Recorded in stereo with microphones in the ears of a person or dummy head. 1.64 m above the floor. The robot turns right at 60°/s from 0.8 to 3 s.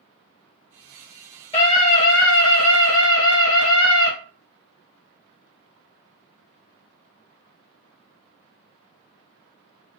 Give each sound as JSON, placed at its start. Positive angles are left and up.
{"t": 1.5, "sound": "a scream", "azimuth_deg": 25, "distance_m": 1.3}